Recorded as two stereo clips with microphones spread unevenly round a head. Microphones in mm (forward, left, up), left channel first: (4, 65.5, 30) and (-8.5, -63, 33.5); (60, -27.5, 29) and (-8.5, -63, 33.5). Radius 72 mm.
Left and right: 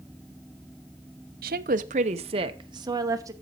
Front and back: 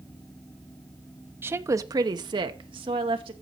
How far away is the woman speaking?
About 0.7 m.